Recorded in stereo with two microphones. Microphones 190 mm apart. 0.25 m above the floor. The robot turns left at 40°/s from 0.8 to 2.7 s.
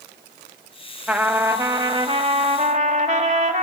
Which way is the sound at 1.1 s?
10° right.